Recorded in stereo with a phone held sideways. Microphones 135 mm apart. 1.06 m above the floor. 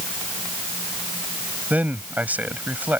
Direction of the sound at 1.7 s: 10° right (ahead or behind).